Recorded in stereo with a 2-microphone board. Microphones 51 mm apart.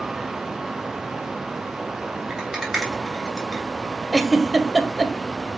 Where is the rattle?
5° right (ahead or behind), 2.0 m.